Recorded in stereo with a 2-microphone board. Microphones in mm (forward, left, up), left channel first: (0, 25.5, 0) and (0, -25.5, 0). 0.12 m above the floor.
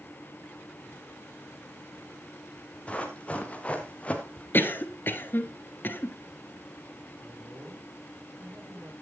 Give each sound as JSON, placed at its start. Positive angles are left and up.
{"t": 2.9, "sound": "running footsteps", "side_deg": 25, "distance_m": 3.5}
{"t": 4.5, "sound": "a cough", "side_deg": 45, "distance_m": 1.5}
{"t": 7.2, "sound": "a man speaking", "side_deg": -40, "distance_m": 8.0}